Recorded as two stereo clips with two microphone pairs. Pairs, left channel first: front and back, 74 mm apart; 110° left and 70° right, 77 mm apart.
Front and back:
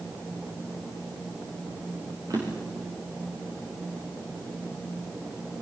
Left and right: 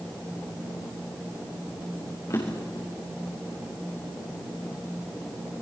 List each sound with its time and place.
2.3 s a drawer: 155° left, 7 m